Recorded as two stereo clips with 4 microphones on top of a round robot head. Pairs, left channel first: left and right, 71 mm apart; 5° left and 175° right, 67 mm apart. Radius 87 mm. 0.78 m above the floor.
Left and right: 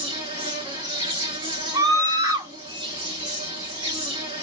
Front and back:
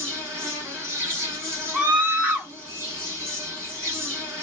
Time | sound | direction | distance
0.0 | an insect | 110° right | 1.0 m
1.7 | a scream | 110° right | 1.3 m